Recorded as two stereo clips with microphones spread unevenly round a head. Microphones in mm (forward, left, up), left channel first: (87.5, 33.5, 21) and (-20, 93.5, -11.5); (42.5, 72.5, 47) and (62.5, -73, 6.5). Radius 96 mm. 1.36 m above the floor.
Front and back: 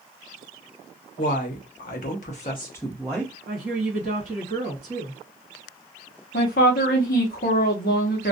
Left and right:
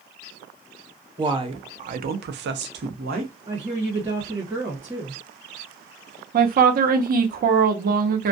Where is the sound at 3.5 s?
160° right, 1.2 m.